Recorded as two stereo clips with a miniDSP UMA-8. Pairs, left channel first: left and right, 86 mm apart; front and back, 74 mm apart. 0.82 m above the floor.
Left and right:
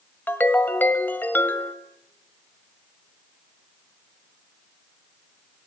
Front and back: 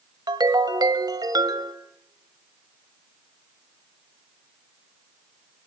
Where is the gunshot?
I don't hear a gunshot.